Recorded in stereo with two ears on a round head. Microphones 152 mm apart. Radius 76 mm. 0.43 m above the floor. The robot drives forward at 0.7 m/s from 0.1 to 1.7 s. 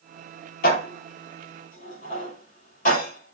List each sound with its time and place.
0.6 s dishes clattering: 55° left (ahead or behind), 6 m; by 3.4 s 50° left (ahead or behind), 6.5 m